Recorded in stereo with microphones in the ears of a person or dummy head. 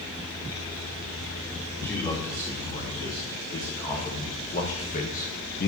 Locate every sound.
1.8 s a man speaking: 15° left (ahead or behind), 3 m; by 5.7 s 45° left (ahead or behind), 1.0 m